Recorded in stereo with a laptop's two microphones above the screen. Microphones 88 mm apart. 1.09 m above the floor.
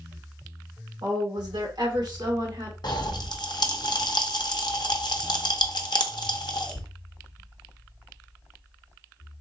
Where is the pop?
60° left (ahead or behind), 0.6 m.